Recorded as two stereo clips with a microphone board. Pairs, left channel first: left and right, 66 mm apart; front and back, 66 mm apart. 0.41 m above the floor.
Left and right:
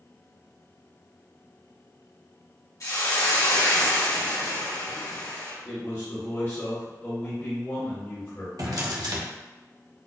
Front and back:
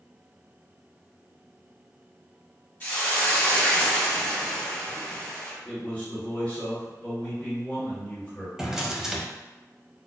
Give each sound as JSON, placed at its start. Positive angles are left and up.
{"t": 2.8, "sound": "a hiss", "azimuth_deg": 65, "distance_m": 1.8}
{"t": 5.7, "sound": "a man speaking", "azimuth_deg": 60, "distance_m": 1.7}
{"t": 8.6, "sound": "a drawer", "azimuth_deg": -100, "distance_m": 0.8}